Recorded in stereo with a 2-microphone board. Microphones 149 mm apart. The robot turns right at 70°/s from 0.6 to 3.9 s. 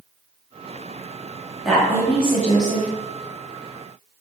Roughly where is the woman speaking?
Ahead.